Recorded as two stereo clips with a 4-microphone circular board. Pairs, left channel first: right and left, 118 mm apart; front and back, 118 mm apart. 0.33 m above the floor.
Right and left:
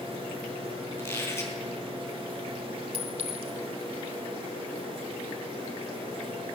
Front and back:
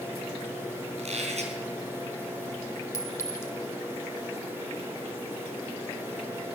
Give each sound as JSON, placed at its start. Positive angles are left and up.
{"t": 1.0, "sound": "a squeak", "azimuth_deg": -160, "distance_m": 3.5}
{"t": 2.9, "sound": "a clink", "azimuth_deg": 65, "distance_m": 1.4}